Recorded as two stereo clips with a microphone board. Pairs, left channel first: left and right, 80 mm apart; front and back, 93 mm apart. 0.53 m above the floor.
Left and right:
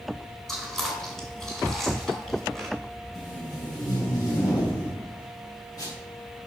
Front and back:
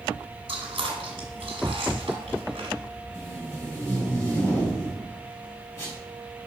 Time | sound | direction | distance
0.5 | chewing | 175° left | 2.0 m
3.1 | tape being pulled | 60° left | 3.5 m